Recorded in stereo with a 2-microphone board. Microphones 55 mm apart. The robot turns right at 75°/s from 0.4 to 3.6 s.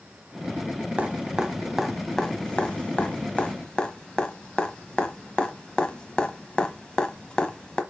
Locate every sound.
1.0 s dripping: 25° right (ahead or behind), 1.1 m; by 7.8 s 20° left (ahead or behind), 1.1 m